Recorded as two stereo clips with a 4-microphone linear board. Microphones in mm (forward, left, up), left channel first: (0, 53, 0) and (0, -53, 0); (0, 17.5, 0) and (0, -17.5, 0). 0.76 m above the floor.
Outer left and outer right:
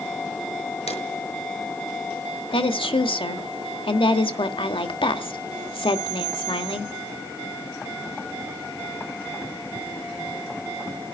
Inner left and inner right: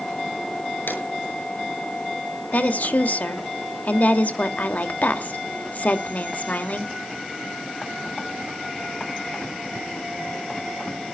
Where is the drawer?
85° left, 7 m.